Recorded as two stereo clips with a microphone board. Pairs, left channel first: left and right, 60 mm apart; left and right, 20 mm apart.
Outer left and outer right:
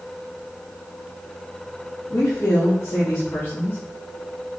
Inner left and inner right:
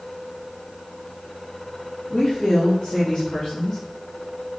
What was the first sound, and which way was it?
A woman speaking, 40° left (ahead or behind).